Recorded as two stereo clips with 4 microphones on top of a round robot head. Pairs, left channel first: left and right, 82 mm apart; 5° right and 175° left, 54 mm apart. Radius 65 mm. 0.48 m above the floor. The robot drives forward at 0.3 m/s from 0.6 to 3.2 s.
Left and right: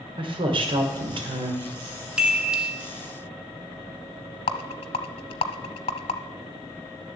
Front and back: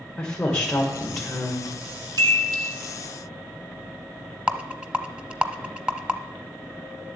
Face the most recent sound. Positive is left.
turn(degrees=105)